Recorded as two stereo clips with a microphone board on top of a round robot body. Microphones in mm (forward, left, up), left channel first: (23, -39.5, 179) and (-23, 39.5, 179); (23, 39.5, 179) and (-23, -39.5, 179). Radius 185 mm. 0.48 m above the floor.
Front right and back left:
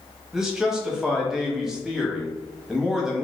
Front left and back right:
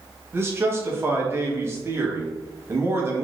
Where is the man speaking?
160° right, 1.0 m.